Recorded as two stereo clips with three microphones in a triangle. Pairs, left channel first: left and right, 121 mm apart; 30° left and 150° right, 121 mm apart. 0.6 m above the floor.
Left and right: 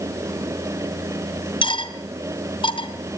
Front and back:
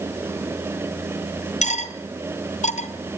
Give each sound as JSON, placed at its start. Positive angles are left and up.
{"t": 1.6, "sound": "cutlery clinking", "azimuth_deg": 45, "distance_m": 2.0}